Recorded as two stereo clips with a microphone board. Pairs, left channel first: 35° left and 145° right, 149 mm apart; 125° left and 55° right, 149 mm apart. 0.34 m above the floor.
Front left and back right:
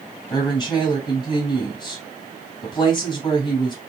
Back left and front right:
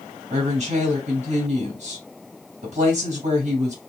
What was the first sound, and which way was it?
A woman speaking, 25° right.